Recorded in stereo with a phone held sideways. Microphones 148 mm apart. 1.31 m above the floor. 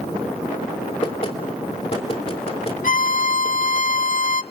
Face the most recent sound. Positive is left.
turn(degrees=65)  # may be behind; listen again after turning